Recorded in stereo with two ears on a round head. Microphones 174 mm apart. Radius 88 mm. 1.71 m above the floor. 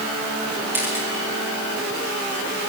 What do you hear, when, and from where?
0.7 s a camera shutter: 10° right (ahead or behind), 9 m